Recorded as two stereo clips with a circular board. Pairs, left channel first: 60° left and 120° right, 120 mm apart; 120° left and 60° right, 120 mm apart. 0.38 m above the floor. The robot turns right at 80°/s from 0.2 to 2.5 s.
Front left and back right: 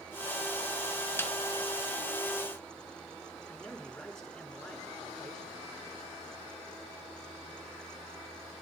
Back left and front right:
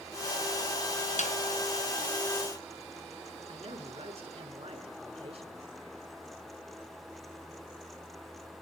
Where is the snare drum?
130° left, 2 m; by 1.3 s 140° left, 2 m.